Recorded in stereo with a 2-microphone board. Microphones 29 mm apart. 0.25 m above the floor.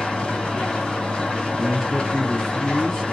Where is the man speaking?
15° left (ahead or behind), 1.1 m.